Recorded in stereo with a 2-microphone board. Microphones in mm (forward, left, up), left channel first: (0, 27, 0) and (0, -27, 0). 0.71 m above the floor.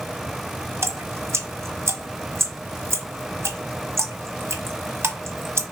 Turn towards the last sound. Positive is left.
turn(degrees=-55)  # may be behind; listen again after turning